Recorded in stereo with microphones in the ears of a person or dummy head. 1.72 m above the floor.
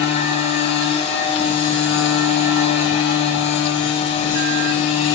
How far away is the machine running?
About 1.2 m.